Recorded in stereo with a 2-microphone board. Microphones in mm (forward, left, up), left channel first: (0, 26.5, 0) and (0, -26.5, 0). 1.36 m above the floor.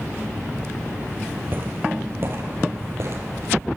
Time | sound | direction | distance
1.5 | footsteps | 40° right (ahead or behind) | 2 m